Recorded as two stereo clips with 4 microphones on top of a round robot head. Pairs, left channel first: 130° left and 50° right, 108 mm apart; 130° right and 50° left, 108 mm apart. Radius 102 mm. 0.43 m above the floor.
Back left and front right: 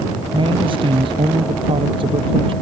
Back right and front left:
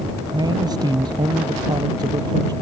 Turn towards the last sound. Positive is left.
turn(degrees=-5)